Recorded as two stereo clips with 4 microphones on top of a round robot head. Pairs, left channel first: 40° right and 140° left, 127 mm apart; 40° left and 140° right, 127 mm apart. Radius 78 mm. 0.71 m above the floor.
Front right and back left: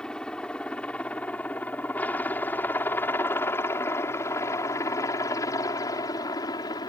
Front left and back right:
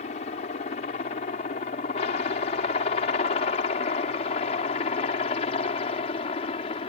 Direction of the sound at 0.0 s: 45° left.